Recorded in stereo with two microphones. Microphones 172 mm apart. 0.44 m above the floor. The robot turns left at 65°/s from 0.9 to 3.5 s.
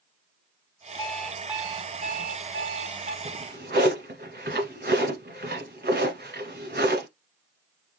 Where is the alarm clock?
20° left, 1.1 m; by 3.1 s 120° right, 1.1 m.